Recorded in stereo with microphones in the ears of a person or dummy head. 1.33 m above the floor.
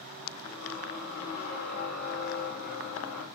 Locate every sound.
0.4 s a squeak: 50° left (ahead or behind), 3 m